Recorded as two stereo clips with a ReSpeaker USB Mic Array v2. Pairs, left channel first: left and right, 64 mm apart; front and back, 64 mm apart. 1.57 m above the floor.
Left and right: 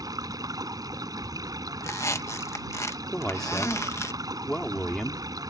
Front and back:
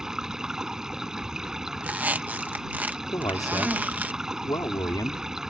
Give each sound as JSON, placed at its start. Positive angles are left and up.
{"t": 0.0, "sound": "running water", "azimuth_deg": -95}
{"t": 1.8, "sound": "a squeak", "azimuth_deg": 120}
{"t": 3.1, "sound": "a man speaking", "azimuth_deg": 5}